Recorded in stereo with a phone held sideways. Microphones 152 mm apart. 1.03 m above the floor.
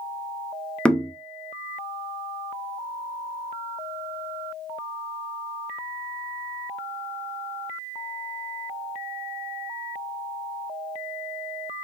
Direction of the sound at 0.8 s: 5° left (ahead or behind).